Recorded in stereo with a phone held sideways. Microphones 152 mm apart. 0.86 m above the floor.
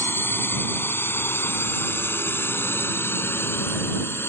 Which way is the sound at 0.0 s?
15° left (ahead or behind).